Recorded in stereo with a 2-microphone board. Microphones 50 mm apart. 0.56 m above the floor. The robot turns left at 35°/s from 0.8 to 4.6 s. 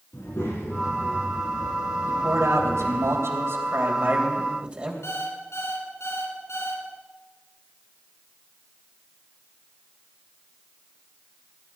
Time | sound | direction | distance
0.1 | a child speaking | 120° left | 3 m
2.1 | a man speaking | 65° right | 3 m
5.0 | an alarm clock | 65° left (ahead or behind) | 3 m